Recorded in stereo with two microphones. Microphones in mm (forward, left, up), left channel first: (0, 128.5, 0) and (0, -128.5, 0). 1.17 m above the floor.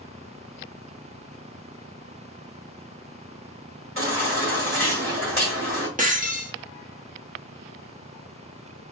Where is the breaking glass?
30° right (ahead or behind), 0.8 m.